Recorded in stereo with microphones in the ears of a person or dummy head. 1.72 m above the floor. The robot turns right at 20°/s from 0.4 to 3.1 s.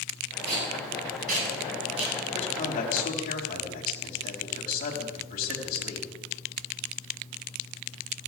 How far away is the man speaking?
About 4 m.